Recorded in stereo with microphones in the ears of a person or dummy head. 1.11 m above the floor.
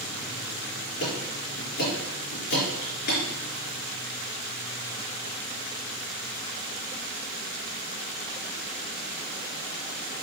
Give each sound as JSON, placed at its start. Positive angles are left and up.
{"t": 1.0, "sound": "ticking", "side_deg": 50, "distance_m": 4.0}